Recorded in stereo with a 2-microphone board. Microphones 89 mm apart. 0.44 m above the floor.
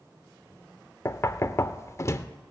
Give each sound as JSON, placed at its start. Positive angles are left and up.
{"t": 1.1, "sound": "knocking", "side_deg": 35, "distance_m": 0.5}